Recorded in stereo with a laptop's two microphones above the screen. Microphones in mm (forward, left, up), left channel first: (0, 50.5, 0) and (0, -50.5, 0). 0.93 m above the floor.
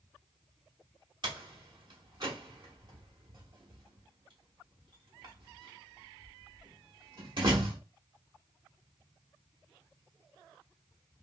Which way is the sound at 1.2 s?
55° right (ahead or behind).